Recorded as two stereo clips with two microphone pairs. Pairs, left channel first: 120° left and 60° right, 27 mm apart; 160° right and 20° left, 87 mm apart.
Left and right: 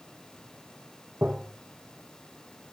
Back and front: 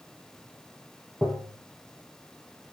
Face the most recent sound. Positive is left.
turn(degrees=-80)